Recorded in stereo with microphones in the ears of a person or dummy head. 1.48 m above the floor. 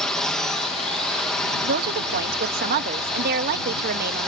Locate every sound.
0.0 s a drone: 5° left (ahead or behind)
1.6 s a woman speaking: 50° right (ahead or behind)